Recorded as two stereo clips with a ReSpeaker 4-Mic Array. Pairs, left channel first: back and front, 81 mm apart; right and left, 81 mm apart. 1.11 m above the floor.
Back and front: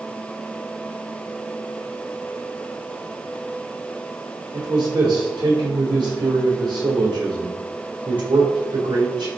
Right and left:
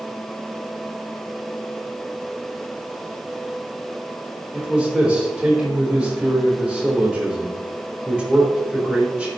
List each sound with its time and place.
4.5 s a man speaking: 10° left, 3.5 m